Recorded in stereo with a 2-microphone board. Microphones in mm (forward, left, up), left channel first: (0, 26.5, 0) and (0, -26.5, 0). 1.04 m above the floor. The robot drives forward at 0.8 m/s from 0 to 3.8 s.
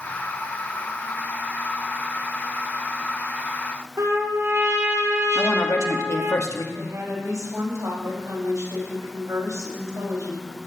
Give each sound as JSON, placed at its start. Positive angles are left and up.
{"t": 4.0, "sound": "a trumpet", "side_deg": -60, "distance_m": 3.5}
{"t": 5.3, "sound": "a woman speaking", "side_deg": 75, "distance_m": 2.0}
{"t": 6.7, "sound": "a woman speaking", "side_deg": -80, "distance_m": 7.0}